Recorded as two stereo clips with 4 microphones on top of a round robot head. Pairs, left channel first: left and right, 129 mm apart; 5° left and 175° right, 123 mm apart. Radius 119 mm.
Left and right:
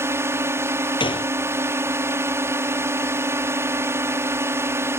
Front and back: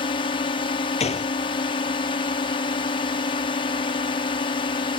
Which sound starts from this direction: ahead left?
A gunshot, at 1.0 s.